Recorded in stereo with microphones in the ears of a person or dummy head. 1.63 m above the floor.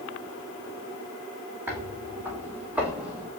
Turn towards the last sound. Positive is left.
turn(degrees=-10)  # may be behind; listen again after turning